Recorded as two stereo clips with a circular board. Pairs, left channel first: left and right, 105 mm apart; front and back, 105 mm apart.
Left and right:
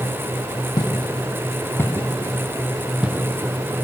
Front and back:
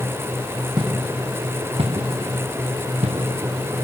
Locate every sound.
0.8 s footsteps: 135° left, 1.8 m; by 3.8 s 155° right, 1.8 m